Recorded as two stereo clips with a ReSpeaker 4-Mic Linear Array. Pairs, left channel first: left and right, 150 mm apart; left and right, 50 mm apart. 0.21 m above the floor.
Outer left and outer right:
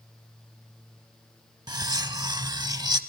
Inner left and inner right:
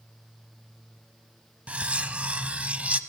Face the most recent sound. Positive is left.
turn(degrees=-25)  # may be behind; listen again after turning